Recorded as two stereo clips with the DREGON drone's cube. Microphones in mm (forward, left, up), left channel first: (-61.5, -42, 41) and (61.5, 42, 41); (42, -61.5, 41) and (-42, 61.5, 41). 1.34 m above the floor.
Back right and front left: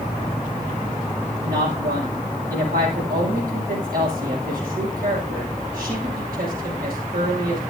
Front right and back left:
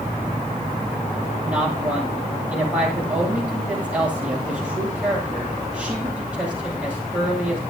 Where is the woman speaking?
45° left, 7.5 m.